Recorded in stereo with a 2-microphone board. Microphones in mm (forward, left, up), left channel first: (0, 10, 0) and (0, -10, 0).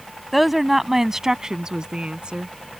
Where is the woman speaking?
Centre (ahead or behind); by 2.5 s 55° right (ahead or behind).